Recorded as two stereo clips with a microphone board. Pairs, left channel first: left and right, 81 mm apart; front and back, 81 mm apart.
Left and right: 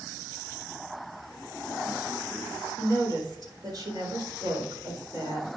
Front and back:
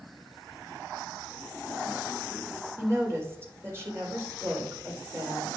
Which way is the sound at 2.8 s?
120° right.